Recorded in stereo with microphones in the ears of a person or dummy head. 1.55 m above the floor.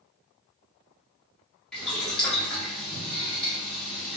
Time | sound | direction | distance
1.7 | boiling | 5° left (ahead or behind) | 0.8 m